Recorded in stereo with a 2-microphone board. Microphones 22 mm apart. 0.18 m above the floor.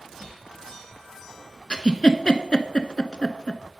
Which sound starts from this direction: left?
A giggle, at 1.7 s.